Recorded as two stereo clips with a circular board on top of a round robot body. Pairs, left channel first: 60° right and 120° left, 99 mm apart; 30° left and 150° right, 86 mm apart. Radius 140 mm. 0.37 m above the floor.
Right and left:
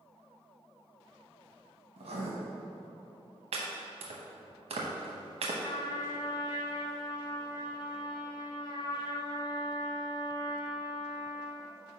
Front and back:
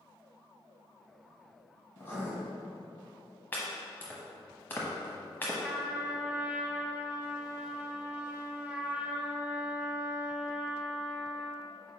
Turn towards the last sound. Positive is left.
turn(degrees=-80)